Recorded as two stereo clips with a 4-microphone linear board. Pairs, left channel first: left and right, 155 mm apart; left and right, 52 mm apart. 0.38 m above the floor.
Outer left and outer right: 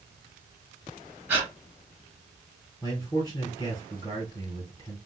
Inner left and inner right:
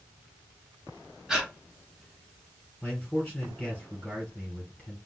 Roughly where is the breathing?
Centre.